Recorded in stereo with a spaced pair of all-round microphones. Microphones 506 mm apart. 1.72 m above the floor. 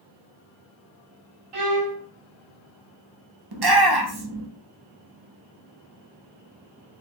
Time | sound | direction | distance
1.5 | a violin | 80° right | 0.9 m
3.5 | a shout | 50° right (ahead or behind) | 0.6 m